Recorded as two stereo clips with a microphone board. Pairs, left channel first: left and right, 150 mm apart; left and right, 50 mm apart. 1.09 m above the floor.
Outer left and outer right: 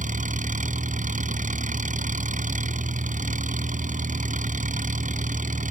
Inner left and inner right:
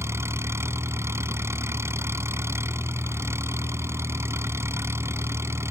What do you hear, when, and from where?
0.0 s an engine running: 55° right (ahead or behind)